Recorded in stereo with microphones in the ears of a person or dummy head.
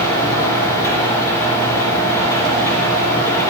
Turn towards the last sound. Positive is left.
turn(degrees=15)  # may be behind; listen again after turning